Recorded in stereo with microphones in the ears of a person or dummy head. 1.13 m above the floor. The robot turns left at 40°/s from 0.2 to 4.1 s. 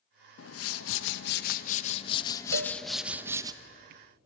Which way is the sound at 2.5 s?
70° right (ahead or behind).